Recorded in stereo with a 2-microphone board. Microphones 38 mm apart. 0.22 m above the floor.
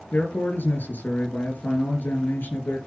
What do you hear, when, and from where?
0.1 s a man speaking: 70° left (ahead or behind), 4.5 m